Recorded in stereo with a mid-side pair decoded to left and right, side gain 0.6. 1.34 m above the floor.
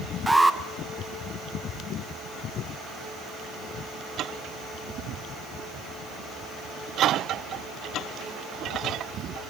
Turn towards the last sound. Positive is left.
turn(degrees=-5)